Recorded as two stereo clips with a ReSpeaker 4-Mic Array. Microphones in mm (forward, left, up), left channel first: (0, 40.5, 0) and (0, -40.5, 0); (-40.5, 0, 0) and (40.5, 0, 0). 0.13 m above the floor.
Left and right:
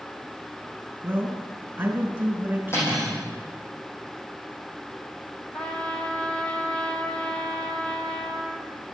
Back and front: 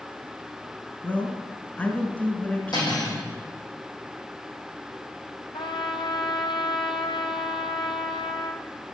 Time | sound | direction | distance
1.0 | a man speaking | 125° right | 1.6 m
2.7 | cutlery clinking | 150° left | 3.5 m
5.5 | a trumpet | 165° left | 0.9 m